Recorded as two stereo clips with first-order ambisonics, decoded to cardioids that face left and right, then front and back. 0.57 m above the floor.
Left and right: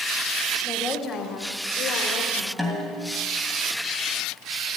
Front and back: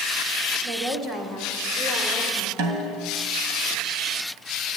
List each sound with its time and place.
0.6 s a woman speaking: 165° left, 1.7 m; by 2.5 s 100° left, 3 m
2.6 s a snare drum: straight behind, 2.5 m